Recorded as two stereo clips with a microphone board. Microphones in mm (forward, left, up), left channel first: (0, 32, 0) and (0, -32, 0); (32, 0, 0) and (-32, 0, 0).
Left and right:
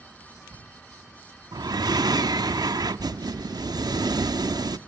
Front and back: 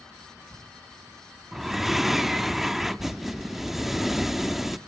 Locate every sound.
1.5 s breathing: 95° right, 0.9 m